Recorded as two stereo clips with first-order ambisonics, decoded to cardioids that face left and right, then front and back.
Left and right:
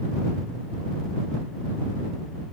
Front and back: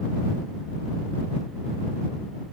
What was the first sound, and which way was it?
Only background noise.